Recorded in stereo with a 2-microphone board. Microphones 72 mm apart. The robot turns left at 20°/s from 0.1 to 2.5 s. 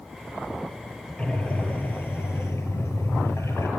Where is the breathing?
15° left (ahead or behind), 4 m; by 3.7 s 40° left (ahead or behind), 4 m.